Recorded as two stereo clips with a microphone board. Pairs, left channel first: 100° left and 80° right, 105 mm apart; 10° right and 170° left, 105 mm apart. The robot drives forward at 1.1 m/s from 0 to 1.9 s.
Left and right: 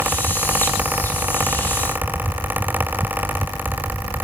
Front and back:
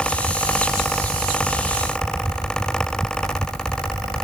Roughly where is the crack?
I don't hear a crack.